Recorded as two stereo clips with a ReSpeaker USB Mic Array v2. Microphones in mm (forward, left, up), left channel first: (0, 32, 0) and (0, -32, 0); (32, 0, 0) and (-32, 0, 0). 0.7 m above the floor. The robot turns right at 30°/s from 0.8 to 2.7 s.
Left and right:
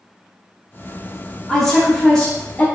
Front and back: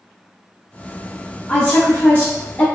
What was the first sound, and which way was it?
A woman speaking, 10° left.